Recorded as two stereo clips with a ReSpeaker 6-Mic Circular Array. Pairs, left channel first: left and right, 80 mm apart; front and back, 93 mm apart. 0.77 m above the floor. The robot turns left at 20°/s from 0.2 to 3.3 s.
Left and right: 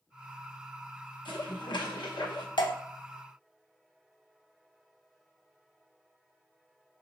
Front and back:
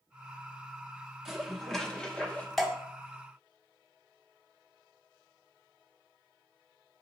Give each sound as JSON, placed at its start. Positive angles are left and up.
{"t": 1.2, "sound": "dishes clattering", "azimuth_deg": 95, "distance_m": 0.8}
{"t": 2.6, "sound": "dripping", "azimuth_deg": 85, "distance_m": 0.7}